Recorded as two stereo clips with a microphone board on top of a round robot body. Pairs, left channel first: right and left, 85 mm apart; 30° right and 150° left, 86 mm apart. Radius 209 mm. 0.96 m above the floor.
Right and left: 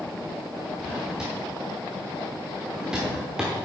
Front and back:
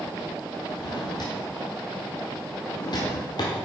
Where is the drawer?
10° left, 1.0 m.